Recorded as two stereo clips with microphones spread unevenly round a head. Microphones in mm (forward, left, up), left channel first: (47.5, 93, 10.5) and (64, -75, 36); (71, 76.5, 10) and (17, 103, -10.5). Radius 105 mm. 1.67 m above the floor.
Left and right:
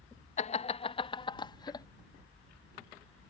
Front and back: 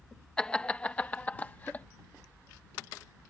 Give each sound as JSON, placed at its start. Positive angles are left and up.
{"t": 0.4, "sound": "laughter", "azimuth_deg": 45}